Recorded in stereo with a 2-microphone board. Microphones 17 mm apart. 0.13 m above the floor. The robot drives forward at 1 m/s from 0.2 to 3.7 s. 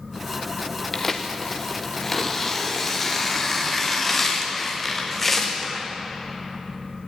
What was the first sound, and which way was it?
Tearing paper, 20° left (ahead or behind).